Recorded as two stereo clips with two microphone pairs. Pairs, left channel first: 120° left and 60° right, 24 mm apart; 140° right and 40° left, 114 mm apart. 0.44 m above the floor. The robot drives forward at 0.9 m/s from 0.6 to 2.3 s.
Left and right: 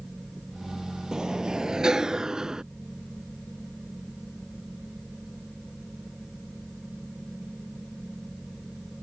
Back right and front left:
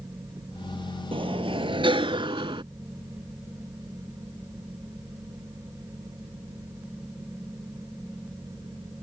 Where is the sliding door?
Straight ahead.